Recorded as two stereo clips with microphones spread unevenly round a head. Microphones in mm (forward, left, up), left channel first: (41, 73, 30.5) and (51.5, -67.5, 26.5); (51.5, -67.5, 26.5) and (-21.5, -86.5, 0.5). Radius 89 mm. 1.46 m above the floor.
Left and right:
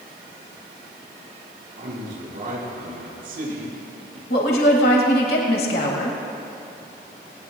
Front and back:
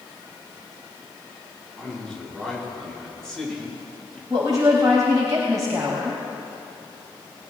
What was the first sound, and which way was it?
A man speaking, 70° right.